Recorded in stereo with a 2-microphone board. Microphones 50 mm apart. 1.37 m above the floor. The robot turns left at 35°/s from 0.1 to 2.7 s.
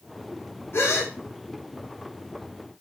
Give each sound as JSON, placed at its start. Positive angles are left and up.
{"t": 0.7, "sound": "a gasp", "side_deg": 50, "distance_m": 1.0}